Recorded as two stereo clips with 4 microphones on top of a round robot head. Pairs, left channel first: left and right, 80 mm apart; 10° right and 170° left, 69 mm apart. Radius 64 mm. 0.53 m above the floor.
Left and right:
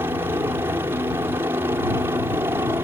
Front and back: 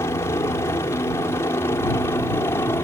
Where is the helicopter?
40° right; by 2.8 s 45° right.